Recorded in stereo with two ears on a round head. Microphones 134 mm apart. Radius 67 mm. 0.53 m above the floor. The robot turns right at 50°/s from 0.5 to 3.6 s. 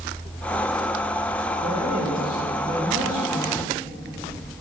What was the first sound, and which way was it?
A man speaking, 120° right.